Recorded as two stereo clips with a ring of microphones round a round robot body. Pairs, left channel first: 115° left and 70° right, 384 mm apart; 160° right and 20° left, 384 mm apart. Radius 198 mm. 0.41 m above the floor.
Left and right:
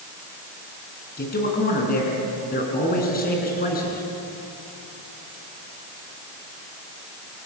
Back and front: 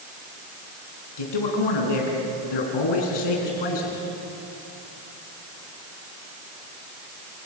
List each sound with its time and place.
1.2 s a man speaking: straight behind, 4.5 m